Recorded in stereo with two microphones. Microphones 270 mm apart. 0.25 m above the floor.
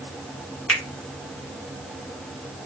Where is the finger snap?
5° left (ahead or behind), 2 m.